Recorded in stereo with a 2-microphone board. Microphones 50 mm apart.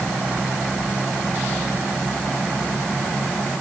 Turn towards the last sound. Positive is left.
No sound to turn to.